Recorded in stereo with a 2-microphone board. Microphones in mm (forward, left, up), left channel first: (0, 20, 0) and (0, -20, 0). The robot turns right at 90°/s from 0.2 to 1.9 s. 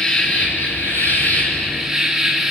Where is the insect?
30° left, 4 m; by 2.5 s 175° right, 4 m.